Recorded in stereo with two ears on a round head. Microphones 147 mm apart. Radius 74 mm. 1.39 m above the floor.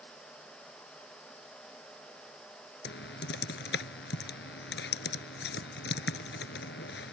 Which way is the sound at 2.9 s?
70° left (ahead or behind).